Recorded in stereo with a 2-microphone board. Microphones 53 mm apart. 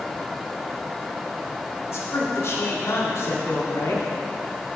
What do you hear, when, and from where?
1.9 s a man speaking: 55° left (ahead or behind), 1.5 m